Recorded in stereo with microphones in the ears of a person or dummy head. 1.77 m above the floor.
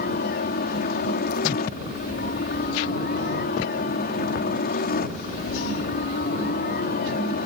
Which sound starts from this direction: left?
A helicopter, at 0.0 s.